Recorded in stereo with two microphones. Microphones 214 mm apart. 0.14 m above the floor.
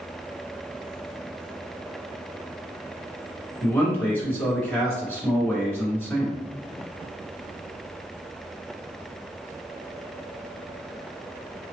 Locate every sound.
3.6 s a man speaking: 10° left (ahead or behind), 1.6 m